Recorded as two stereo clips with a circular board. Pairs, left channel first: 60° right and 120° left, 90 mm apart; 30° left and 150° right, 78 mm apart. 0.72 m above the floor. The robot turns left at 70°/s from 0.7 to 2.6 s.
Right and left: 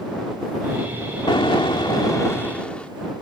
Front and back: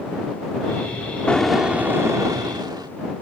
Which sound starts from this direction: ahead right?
An explosion, at 1.3 s.